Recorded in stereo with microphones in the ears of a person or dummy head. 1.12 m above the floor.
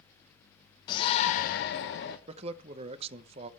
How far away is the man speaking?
About 0.6 m.